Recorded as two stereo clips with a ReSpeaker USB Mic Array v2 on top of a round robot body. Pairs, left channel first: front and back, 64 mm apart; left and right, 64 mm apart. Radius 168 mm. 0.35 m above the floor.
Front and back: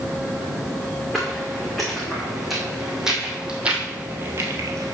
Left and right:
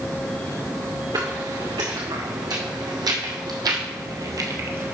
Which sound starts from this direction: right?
Footsteps, at 1.1 s.